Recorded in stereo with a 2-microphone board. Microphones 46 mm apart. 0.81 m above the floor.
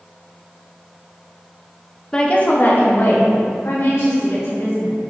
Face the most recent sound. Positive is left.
turn(degrees=70)  # may be behind; listen again after turning